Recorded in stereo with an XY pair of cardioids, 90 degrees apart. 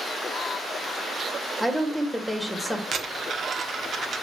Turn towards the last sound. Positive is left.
turn(degrees=-55)